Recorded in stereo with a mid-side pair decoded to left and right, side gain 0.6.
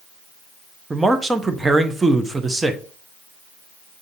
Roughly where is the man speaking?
Ahead.